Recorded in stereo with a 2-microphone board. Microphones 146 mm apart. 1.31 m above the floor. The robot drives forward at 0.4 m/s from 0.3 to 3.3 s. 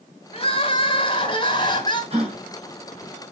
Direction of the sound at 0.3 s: 40° left (ahead or behind).